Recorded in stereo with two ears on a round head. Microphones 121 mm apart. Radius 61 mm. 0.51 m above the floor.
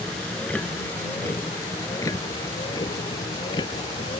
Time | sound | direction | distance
0.0 | a vehicle | 5° left (ahead or behind) | ?